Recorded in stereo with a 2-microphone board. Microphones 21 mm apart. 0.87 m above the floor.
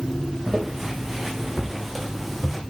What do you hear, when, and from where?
0.5 s footsteps: 20° right (ahead or behind), 3.5 m; by 2.6 s centre (ahead or behind), 2.5 m